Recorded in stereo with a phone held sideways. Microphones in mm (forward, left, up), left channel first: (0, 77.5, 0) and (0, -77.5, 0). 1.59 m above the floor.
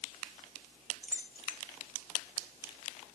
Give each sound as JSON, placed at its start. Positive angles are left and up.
{"t": 1.0, "sound": "keys jangling", "side_deg": 55, "distance_m": 4.5}